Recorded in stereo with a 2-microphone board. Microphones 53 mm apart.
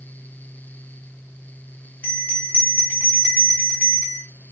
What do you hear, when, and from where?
2.0 s a bell: 30° left (ahead or behind), 1.0 m